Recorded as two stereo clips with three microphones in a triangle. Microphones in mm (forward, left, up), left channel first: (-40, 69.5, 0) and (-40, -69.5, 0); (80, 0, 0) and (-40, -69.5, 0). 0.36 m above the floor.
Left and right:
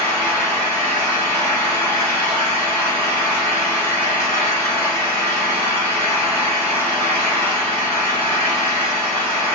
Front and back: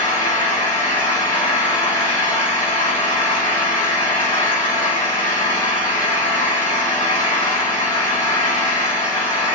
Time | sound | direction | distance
0.0 | an engine running | 25° left | 2.5 m